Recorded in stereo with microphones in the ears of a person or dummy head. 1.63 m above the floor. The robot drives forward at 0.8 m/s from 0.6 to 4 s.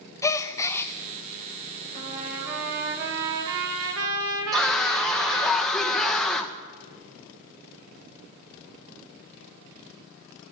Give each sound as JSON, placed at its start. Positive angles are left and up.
{"t": 0.2, "sound": "a gasp", "side_deg": 15, "distance_m": 0.8}
{"t": 1.9, "sound": "a trumpet", "side_deg": -50, "distance_m": 3.5}
{"t": 4.5, "sound": "a scream", "side_deg": 5, "distance_m": 1.5}